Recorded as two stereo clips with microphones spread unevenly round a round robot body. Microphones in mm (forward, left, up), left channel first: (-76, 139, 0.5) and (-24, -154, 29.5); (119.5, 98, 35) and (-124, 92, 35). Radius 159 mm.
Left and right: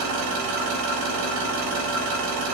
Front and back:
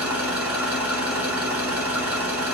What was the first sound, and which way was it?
An engine running, 95° right.